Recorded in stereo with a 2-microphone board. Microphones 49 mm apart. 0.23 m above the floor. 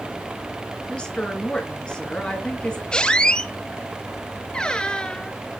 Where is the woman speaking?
15° left (ahead or behind), 3 m.